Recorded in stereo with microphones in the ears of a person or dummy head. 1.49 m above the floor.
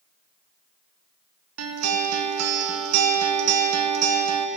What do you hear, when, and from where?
1.6 s a guitar: 80° right, 1.2 m